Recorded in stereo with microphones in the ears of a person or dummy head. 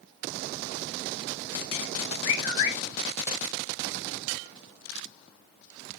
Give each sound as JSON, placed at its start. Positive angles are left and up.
{"t": 2.2, "sound": "a bird", "side_deg": 40, "distance_m": 5.0}